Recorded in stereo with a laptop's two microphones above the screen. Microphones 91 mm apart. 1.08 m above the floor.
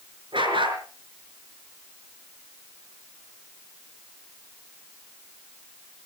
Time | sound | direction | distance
0.3 | a dog barking | 60° right (ahead or behind) | 5.5 m